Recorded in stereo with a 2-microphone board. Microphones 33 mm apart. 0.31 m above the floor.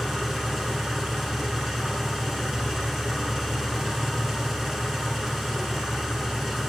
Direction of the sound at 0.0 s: 5° right (ahead or behind).